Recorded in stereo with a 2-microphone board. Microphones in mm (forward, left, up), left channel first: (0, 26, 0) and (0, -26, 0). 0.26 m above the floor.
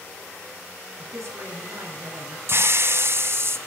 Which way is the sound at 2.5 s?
55° right (ahead or behind).